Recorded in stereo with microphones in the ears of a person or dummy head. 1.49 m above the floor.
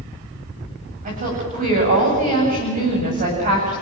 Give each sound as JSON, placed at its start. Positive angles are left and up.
{"t": 1.1, "sound": "a woman speaking", "side_deg": -35, "distance_m": 8.5}